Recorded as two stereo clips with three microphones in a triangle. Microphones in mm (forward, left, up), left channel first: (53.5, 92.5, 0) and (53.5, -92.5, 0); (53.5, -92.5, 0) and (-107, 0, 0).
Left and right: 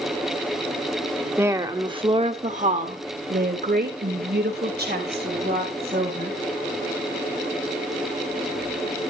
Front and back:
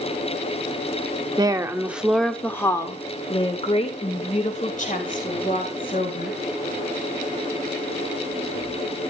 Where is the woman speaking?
160° right, 1.1 m; by 6.4 s 65° right, 3 m.